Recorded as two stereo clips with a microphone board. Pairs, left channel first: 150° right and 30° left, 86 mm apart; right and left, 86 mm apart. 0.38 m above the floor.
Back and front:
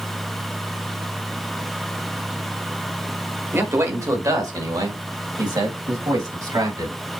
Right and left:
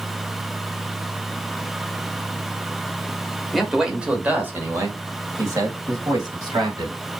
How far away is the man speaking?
About 1.4 m.